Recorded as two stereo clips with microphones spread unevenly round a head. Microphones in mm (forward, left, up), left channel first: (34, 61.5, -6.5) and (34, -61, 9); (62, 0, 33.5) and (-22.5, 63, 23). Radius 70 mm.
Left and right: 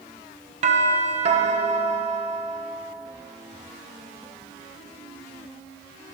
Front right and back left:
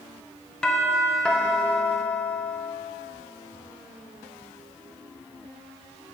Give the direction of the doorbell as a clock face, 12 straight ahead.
4 o'clock.